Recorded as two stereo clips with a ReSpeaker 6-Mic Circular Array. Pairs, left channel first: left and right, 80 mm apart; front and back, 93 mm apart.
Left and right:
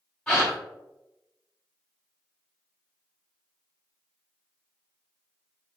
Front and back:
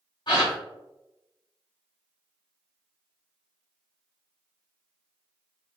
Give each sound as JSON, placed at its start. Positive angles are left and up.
{"t": 0.3, "sound": "a gasp", "azimuth_deg": 15, "distance_m": 1.6}